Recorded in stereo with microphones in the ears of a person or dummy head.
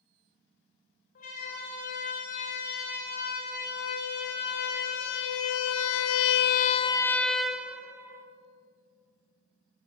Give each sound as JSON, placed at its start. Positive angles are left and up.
{"t": 1.1, "sound": "a siren", "side_deg": 45, "distance_m": 5.5}